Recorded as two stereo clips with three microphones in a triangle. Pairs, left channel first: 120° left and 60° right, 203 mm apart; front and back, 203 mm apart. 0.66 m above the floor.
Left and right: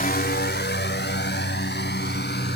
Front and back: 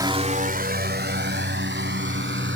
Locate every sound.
0.0 s a drone: 115° left; by 2.6 s 155° left